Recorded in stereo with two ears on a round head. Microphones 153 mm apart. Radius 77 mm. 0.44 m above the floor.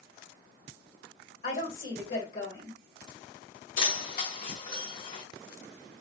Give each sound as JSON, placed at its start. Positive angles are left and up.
{"t": 1.4, "sound": "a woman speaking", "side_deg": 55, "distance_m": 2.0}
{"t": 3.8, "sound": "keys jangling", "side_deg": 55, "distance_m": 1.1}